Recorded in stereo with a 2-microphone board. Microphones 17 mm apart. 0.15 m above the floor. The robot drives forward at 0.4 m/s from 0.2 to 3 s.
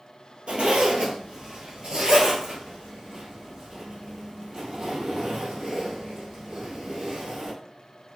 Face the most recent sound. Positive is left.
turn(degrees=-40)  # may be behind; listen again after turning